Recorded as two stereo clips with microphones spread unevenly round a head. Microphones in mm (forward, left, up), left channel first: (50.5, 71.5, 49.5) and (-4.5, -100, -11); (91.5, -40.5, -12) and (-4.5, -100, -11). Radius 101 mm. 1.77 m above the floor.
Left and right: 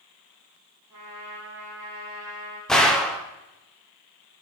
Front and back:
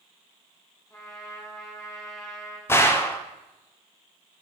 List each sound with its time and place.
0.9 s a trumpet: 30° right, 3.5 m
2.7 s a gunshot: 60° left, 0.5 m